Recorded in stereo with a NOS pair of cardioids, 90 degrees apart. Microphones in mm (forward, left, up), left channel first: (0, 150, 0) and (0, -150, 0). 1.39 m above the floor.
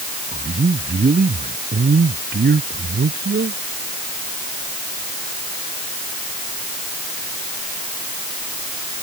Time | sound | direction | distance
0.3 | a man speaking | 25° right | ?